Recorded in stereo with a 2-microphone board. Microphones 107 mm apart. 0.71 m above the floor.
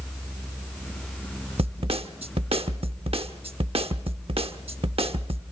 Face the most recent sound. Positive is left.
turn(degrees=-65)  # may be behind; listen again after turning